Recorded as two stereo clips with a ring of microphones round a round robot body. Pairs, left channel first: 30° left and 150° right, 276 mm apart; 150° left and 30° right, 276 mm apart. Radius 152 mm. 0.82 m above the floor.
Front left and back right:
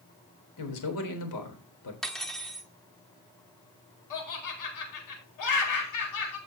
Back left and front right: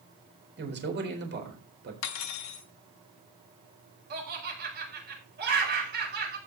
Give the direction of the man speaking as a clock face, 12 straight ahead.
11 o'clock.